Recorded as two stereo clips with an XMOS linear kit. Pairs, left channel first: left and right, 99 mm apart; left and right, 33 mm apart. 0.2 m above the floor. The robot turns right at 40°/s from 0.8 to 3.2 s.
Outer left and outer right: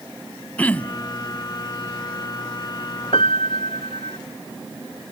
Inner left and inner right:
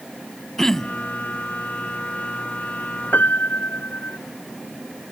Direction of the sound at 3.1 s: 70° left (ahead or behind).